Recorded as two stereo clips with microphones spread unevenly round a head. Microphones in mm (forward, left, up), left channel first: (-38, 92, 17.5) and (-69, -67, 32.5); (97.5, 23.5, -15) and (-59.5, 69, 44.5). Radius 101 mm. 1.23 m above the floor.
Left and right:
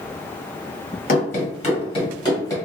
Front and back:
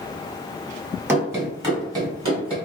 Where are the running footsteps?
105° left, 1.8 m; by 2.5 s 150° left, 1.8 m.